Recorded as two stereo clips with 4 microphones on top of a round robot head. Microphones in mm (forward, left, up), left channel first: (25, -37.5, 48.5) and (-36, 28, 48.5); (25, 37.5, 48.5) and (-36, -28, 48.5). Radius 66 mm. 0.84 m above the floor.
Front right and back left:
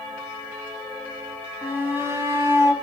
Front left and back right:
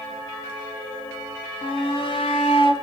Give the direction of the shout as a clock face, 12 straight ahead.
10 o'clock.